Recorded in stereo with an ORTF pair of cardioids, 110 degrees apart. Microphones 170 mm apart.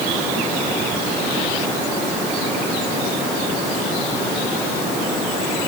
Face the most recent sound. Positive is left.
No sound to turn to.